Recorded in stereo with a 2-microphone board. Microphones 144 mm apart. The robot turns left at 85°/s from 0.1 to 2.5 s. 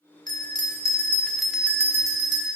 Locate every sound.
0.3 s a bell: 30° left (ahead or behind), 0.6 m; by 2.5 s 30° right (ahead or behind), 0.6 m